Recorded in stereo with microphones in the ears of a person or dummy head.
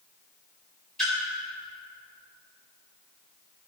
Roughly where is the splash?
Centre.